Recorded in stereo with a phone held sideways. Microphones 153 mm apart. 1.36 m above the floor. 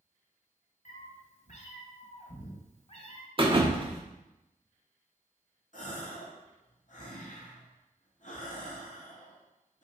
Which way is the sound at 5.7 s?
55° left (ahead or behind).